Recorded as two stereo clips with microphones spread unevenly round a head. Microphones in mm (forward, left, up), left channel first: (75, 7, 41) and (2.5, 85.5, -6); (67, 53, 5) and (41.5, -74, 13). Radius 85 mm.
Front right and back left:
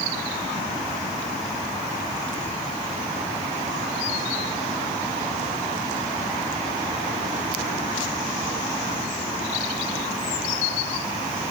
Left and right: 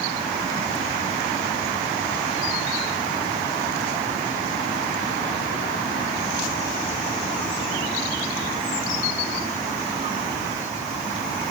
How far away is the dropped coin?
I don't hear a dropped coin.